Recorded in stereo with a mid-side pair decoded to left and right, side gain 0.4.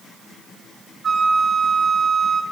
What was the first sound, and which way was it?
A flute, 65° right.